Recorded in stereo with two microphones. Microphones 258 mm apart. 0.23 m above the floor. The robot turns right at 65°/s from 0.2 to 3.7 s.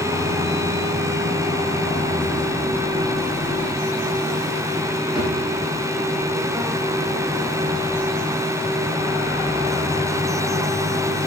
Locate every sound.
5.2 s a drawer: 20° right (ahead or behind), 5 m